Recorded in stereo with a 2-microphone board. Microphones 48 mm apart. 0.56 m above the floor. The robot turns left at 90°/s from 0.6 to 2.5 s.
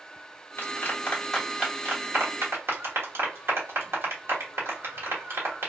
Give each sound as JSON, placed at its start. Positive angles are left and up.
{"t": 0.6, "sound": "a clap", "side_deg": 50, "distance_m": 1.1}